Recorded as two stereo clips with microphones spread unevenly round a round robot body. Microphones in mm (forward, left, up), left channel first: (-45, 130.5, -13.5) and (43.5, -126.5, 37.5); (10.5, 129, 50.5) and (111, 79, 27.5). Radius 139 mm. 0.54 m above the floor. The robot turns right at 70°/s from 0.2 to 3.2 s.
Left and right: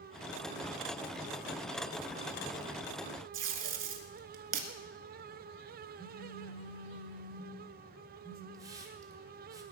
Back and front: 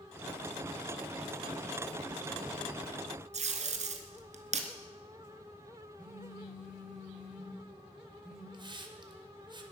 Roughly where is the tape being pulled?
Ahead.